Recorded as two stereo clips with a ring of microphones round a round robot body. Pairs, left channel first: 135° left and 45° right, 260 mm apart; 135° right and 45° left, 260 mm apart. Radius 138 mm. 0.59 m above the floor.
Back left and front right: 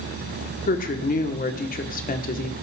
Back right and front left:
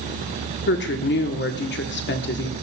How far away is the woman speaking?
About 1.5 m.